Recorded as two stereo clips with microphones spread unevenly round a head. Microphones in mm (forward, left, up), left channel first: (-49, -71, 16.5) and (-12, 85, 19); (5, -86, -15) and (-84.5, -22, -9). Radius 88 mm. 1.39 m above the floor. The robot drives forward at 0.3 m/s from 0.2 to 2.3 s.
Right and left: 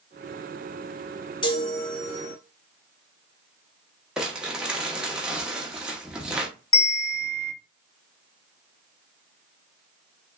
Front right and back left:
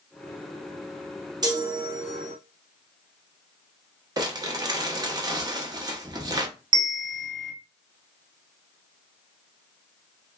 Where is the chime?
165° right, 1.1 m.